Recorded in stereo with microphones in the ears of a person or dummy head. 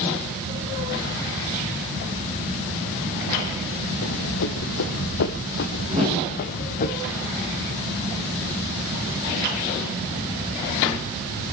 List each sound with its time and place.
4.0 s running footsteps: 60° left (ahead or behind), 2 m; by 6.9 s 40° left (ahead or behind), 2.5 m
5.9 s a whoosh: 30° right (ahead or behind), 7 m